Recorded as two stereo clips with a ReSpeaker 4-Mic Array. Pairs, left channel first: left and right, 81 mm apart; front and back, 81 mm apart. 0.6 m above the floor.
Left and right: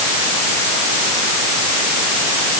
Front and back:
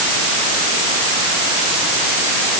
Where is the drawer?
I don't hear a drawer.